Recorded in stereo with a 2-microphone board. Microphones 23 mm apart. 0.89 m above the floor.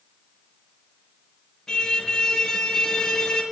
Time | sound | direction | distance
1.7 | a car horn | 25° left (ahead or behind) | 6 m